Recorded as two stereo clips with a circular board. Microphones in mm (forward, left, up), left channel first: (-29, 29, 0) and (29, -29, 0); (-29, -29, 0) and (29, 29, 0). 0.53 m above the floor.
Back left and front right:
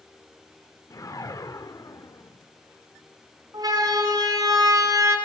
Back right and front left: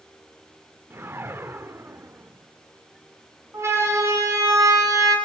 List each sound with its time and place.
0.9 s a whoosh: 100° left, 1.2 m
3.5 s a siren: 10° right, 6 m; by 5.2 s straight ahead, 6 m